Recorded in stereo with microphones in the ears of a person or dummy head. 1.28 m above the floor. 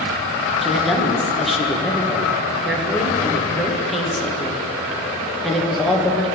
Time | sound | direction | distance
0.6 | a woman speaking | 5° right (ahead or behind) | 1.4 m